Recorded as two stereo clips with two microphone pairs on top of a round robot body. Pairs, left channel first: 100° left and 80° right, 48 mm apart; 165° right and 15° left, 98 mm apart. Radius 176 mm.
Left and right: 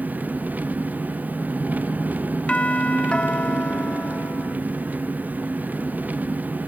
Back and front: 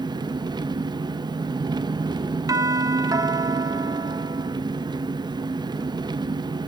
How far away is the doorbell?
About 0.9 m.